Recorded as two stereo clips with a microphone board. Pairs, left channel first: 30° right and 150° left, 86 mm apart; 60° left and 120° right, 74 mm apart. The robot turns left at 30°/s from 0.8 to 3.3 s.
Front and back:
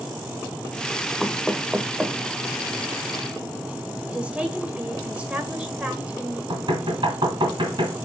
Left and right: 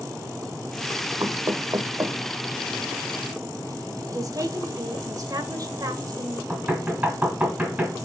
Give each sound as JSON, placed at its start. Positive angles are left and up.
{"t": 1.2, "sound": "knocking", "azimuth_deg": -115, "distance_m": 0.9}
{"t": 4.1, "sound": "a woman speaking", "azimuth_deg": -135, "distance_m": 1.8}
{"t": 6.5, "sound": "knocking", "azimuth_deg": 170, "distance_m": 2.5}